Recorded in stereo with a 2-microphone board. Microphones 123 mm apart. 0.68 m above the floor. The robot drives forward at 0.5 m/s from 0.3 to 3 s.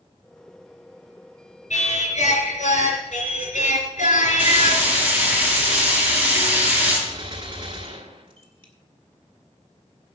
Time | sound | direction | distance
1.7 | singing | 75° left (ahead or behind) | 3.5 m
4.4 | frying | 10° right (ahead or behind) | 6.5 m
7.1 | a gunshot | 45° right (ahead or behind) | 1.6 m